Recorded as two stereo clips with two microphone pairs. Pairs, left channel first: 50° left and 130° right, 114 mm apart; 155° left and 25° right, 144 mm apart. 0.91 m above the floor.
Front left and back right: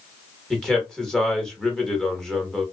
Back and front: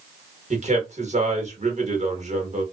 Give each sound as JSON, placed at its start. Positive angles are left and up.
{"t": 0.5, "sound": "a man speaking", "azimuth_deg": -35, "distance_m": 1.2}